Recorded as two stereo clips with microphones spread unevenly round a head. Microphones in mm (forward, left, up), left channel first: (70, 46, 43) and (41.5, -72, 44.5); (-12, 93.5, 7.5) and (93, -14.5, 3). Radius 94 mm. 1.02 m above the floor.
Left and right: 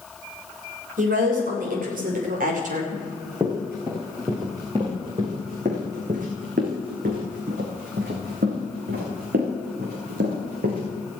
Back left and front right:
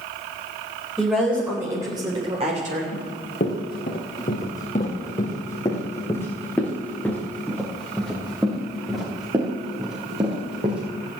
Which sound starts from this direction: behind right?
A woman speaking, at 1.0 s.